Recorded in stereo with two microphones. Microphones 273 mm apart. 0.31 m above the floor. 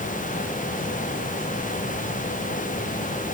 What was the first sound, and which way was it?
Only background noise.